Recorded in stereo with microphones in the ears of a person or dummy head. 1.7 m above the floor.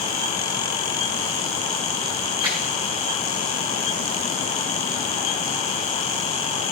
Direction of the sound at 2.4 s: 20° right (ahead or behind).